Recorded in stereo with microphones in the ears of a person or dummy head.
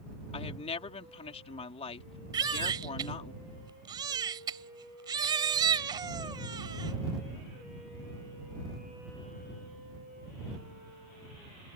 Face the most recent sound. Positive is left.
turn(degrees=-25)  # may be behind; listen again after turning